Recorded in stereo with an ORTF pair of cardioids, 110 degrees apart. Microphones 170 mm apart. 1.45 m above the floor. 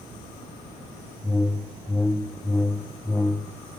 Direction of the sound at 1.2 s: 10° left.